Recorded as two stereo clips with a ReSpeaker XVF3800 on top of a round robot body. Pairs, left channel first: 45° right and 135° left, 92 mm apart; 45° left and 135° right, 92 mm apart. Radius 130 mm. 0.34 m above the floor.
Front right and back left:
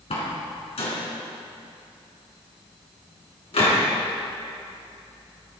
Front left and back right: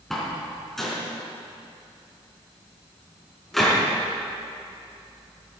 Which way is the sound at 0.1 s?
45° right.